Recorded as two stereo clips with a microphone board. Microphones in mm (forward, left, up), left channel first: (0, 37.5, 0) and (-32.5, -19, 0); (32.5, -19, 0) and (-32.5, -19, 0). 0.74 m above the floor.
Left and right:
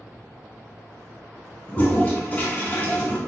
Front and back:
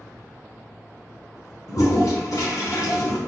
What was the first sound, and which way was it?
A toilet flushing, straight ahead.